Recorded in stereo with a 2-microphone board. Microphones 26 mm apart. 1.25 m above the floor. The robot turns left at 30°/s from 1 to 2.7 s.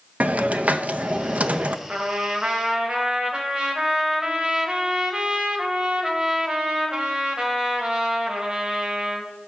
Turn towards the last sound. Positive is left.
turn(degrees=-30)  # may be behind; listen again after turning